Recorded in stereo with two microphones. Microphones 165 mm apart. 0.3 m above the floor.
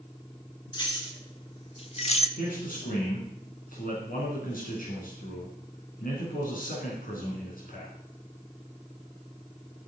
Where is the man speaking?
60° left (ahead or behind), 3.5 m.